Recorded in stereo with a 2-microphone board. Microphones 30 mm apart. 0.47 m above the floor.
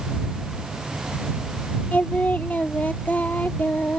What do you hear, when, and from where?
1.9 s singing: 75° left (ahead or behind)